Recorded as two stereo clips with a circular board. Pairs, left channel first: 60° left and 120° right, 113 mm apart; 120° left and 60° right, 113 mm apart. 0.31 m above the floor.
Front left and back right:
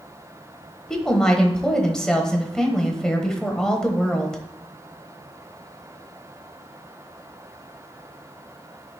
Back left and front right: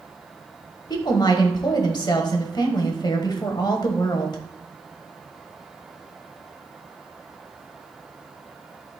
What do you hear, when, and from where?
0.9 s a woman speaking: 140° left, 1.2 m